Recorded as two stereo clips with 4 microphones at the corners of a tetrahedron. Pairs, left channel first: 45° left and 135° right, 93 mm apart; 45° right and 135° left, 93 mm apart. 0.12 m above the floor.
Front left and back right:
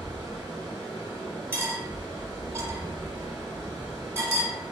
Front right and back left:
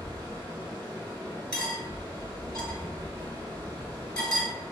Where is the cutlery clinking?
110° right, 0.9 m.